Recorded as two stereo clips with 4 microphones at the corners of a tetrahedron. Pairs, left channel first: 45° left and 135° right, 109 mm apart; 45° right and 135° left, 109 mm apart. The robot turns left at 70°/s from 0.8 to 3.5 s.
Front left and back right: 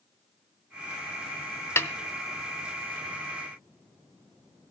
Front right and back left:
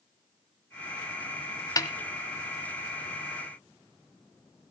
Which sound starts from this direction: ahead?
A snare drum, at 1.8 s.